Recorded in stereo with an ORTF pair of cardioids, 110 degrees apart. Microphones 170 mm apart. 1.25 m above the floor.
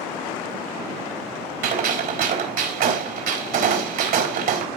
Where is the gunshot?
65° right, 4 m.